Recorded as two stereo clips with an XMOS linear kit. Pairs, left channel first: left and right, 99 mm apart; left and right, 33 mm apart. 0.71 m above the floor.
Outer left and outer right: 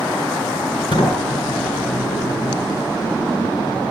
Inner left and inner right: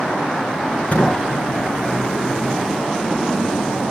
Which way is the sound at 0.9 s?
65° left (ahead or behind).